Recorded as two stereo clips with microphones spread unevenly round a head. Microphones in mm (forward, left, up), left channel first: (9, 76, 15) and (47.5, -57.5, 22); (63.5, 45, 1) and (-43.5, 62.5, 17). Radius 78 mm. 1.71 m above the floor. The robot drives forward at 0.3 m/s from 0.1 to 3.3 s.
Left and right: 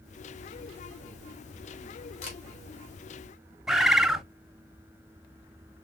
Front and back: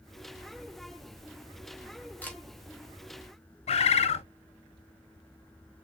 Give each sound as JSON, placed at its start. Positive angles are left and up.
{"t": 2.2, "sound": "a camera shutter", "azimuth_deg": 70, "distance_m": 3.0}
{"t": 3.7, "sound": "a bird", "azimuth_deg": 10, "distance_m": 0.8}